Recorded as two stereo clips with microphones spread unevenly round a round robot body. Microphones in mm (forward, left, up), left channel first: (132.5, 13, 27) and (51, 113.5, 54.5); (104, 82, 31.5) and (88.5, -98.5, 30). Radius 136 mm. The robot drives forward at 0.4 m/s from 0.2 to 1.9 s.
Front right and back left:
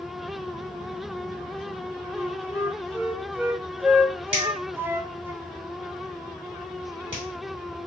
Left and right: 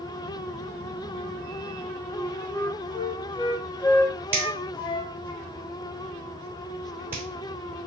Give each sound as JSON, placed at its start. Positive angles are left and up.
{"t": 2.1, "sound": "a flute", "azimuth_deg": 45, "distance_m": 0.6}
{"t": 4.3, "sound": "a finger snap", "azimuth_deg": -175, "distance_m": 1.4}